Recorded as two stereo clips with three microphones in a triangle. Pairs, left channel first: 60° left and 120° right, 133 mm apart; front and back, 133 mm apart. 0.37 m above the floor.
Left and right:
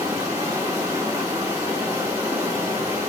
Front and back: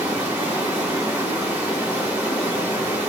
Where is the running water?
120° right, 1.1 m.